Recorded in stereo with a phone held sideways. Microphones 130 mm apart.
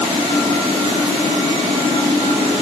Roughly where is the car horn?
No car horn in this recording.